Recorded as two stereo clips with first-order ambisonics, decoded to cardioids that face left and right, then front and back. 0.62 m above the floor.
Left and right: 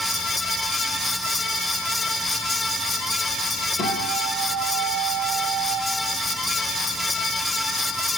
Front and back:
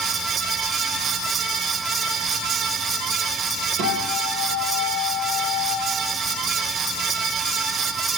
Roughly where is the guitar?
Behind left.